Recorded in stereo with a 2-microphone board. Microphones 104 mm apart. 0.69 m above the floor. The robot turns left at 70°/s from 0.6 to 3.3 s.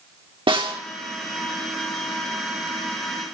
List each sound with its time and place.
0.5 s a snare drum: 55° right (ahead or behind), 1.9 m; by 0.8 s 60° right (ahead or behind), 1.9 m